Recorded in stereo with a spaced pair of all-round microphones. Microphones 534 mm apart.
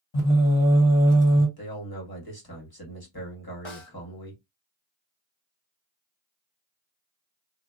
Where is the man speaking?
40° left (ahead or behind), 1.3 m.